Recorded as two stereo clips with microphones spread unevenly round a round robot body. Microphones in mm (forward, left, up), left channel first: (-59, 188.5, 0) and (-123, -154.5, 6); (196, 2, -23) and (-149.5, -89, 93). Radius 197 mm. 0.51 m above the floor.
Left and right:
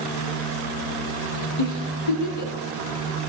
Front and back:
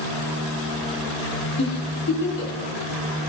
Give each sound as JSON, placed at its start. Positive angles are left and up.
{"t": 1.6, "sound": "a giggle", "azimuth_deg": 75, "distance_m": 3.0}